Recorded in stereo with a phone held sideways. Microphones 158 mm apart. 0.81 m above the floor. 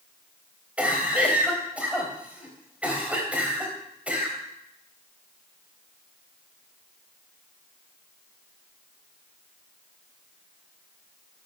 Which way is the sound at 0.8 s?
10° right (ahead or behind).